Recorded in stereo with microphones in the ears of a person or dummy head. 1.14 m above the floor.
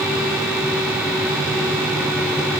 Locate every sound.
Only background noise.